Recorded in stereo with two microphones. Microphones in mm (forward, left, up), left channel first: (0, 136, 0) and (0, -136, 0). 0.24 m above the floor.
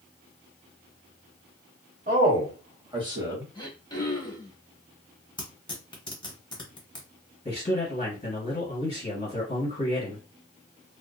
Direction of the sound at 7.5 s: 20° left (ahead or behind).